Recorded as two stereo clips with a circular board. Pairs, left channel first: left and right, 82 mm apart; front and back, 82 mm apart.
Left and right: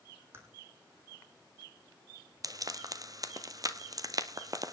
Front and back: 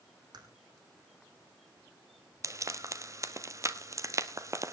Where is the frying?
130° right, 1.1 m.